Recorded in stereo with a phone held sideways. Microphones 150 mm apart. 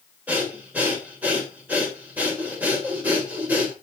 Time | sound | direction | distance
0.3 | breathing | 10° right (ahead or behind) | 3 m